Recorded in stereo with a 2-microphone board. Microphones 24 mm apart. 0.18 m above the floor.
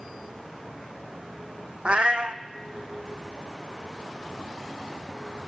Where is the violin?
No violin in this recording.